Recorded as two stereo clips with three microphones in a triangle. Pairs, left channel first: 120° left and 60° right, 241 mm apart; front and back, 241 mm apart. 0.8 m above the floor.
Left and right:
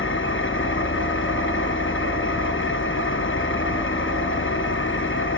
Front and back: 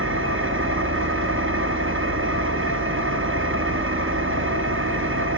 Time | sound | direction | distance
0.0 | an engine running | 150° left | 0.9 m